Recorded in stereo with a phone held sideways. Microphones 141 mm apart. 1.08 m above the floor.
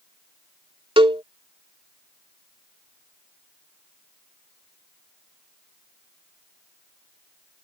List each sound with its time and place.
1.0 s a cowbell: 35° right (ahead or behind)